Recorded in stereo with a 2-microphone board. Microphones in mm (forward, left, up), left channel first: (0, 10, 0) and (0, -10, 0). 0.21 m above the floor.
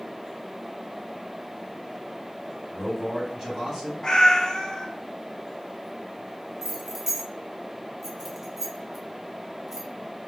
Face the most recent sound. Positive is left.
turn(degrees=-20)  # may be behind; listen again after turning